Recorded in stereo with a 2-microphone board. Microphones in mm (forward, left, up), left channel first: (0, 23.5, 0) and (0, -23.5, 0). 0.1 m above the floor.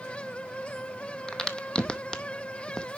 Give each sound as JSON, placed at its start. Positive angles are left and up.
{"t": 1.3, "sound": "a crack", "side_deg": 15, "distance_m": 0.7}